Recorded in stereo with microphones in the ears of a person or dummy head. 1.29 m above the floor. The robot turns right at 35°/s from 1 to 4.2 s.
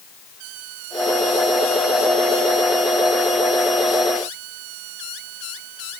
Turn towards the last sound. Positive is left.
No sound to turn to.